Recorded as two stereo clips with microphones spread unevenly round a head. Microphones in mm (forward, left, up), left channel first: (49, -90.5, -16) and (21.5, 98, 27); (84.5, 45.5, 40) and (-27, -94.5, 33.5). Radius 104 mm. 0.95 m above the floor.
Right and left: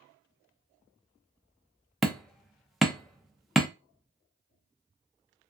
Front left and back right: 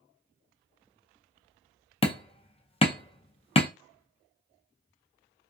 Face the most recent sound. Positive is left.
turn(degrees=0)